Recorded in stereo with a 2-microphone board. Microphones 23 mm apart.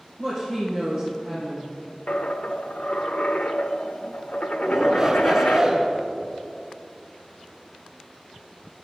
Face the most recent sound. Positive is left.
turn(degrees=-15)  # may be behind; listen again after turning